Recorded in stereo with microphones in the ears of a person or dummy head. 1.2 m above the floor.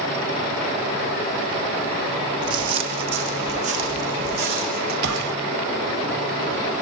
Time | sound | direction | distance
2.4 | footsteps | 30° right (ahead or behind) | 4 m
5.0 | a gunshot | 65° right (ahead or behind) | 2.0 m